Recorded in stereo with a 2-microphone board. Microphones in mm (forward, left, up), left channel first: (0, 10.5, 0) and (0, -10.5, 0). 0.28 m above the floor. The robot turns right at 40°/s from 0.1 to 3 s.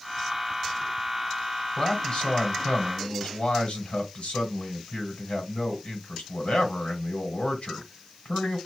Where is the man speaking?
45° left, 1.8 m; by 8.6 s 95° left, 1.8 m.